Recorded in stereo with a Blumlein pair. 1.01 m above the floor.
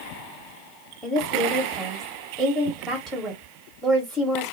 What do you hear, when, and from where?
1.0 s a woman speaking: straight ahead, 1.0 m